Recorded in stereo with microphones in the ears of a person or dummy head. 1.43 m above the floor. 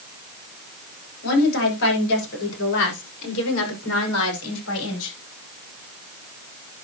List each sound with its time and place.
1.2 s a woman speaking: 65° left (ahead or behind), 7 m; by 5.2 s 80° left, 5 m